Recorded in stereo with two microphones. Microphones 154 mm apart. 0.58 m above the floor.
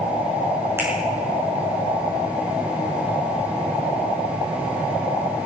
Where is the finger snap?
15° right (ahead or behind), 6.5 m.